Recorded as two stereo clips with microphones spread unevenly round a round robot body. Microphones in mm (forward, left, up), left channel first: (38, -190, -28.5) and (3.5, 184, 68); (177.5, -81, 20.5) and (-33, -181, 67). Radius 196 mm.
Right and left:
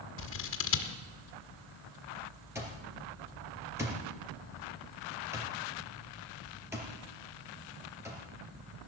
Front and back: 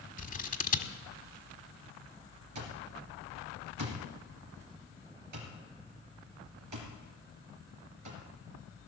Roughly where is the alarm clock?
Behind.